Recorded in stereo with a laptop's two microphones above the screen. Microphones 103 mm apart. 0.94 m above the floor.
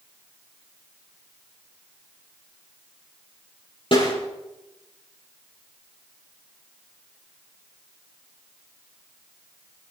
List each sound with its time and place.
3.9 s a snare drum: 55° left (ahead or behind), 7 m